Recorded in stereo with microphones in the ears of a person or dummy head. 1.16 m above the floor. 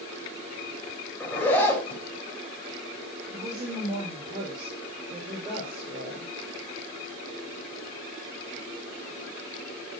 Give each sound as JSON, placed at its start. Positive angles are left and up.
{"t": 1.2, "sound": "a zipper", "side_deg": 10, "distance_m": 4.0}
{"t": 3.3, "sound": "a woman speaking", "side_deg": -35, "distance_m": 4.5}